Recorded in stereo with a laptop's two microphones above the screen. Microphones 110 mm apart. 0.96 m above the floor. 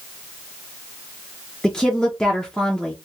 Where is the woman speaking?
5° left (ahead or behind), 0.6 m.